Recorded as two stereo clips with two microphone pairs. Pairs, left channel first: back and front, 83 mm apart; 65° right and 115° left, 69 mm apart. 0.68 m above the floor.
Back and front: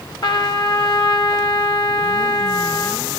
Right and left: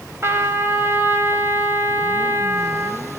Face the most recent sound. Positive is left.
turn(degrees=165)